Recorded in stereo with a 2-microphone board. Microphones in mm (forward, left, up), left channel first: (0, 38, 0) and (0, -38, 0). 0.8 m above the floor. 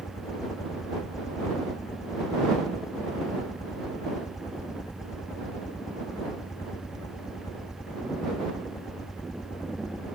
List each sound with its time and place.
0.0 s a helicopter: 45° left (ahead or behind); by 10.2 s 55° left (ahead or behind)